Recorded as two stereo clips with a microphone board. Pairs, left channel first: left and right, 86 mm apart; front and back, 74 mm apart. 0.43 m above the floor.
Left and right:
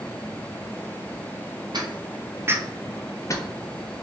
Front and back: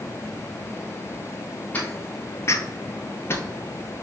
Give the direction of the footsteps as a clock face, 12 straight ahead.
2 o'clock.